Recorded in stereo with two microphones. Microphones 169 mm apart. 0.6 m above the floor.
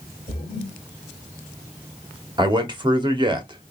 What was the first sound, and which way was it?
A splash, 55° left (ahead or behind).